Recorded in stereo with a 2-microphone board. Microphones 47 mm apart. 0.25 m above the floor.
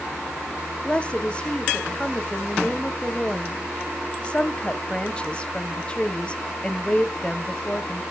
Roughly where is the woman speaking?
Left.